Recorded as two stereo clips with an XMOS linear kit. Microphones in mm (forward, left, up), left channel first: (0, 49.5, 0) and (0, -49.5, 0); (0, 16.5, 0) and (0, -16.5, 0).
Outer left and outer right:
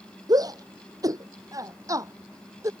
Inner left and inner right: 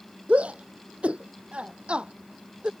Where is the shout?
40° right (ahead or behind); by 2.7 s 30° right (ahead or behind).